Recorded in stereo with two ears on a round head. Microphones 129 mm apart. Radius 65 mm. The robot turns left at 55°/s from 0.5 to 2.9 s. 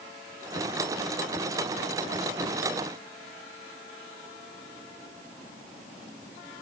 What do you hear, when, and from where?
Only background noise.